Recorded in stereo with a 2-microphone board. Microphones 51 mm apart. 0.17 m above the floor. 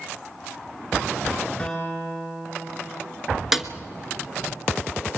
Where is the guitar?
15° left (ahead or behind), 7 m.